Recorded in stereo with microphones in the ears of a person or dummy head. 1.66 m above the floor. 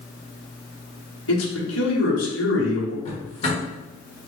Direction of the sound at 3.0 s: 35° left (ahead or behind).